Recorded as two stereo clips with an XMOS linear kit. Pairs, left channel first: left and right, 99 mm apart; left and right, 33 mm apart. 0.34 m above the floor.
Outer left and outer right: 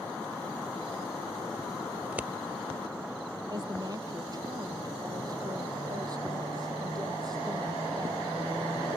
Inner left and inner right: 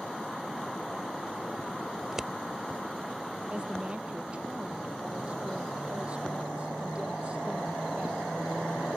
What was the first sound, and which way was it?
Scissors, 15° right (ahead or behind).